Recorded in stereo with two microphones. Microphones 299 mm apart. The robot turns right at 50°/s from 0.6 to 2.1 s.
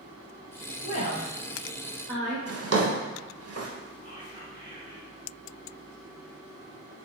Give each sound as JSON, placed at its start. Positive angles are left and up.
{"t": 0.8, "sound": "a woman speaking", "side_deg": 30, "distance_m": 0.9}
{"t": 2.5, "sound": "a drawer", "side_deg": -55, "distance_m": 0.5}
{"t": 4.0, "sound": "whispering", "side_deg": -15, "distance_m": 0.8}